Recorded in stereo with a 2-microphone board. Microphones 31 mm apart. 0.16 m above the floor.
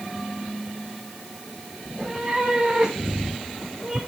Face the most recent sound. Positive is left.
turn(degrees=-15)  # may be behind; listen again after turning